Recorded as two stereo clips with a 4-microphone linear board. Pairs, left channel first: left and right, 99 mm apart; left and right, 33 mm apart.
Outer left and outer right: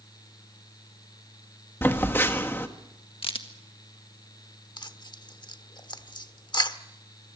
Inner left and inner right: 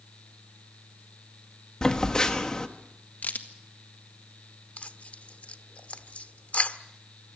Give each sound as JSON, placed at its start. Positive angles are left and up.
{"t": 1.8, "sound": "a phone buzzing", "side_deg": 20, "distance_m": 1.5}
{"t": 3.2, "sound": "a crack", "side_deg": 65, "distance_m": 1.7}
{"t": 4.8, "sound": "tearing paper", "side_deg": 50, "distance_m": 1.0}